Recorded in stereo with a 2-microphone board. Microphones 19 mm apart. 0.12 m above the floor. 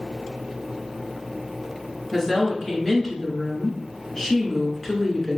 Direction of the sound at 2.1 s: 25° left (ahead or behind).